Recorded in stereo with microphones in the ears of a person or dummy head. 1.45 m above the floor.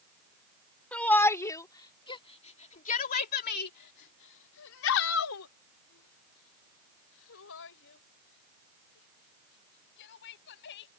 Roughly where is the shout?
Centre.